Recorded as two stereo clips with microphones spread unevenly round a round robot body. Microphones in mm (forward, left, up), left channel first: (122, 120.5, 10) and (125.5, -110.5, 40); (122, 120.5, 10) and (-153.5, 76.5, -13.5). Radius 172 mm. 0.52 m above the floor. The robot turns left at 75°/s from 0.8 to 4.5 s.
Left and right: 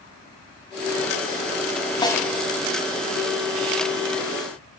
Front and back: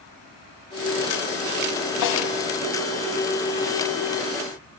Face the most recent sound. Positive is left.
turn(degrees=-170)